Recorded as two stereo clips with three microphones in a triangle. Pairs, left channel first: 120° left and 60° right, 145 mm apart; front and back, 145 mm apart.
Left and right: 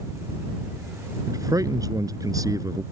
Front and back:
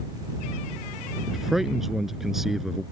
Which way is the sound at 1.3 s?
95° right.